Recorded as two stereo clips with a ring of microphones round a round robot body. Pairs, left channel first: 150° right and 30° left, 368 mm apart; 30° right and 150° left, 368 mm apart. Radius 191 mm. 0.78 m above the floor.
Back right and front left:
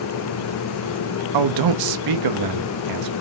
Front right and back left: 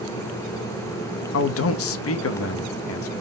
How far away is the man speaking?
About 0.7 m.